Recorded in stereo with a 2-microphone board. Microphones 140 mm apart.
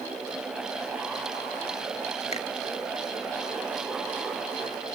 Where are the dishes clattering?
No dishes clattering in this recording.